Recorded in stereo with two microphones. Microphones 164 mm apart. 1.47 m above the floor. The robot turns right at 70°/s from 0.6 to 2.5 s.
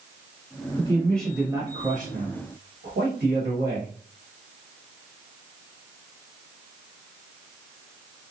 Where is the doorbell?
No doorbell in this recording.